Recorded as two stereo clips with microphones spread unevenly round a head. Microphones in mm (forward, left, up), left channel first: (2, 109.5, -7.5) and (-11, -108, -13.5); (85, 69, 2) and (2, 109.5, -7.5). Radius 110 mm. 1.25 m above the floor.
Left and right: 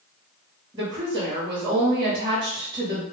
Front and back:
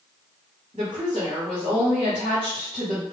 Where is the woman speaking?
165° right, 1.0 m.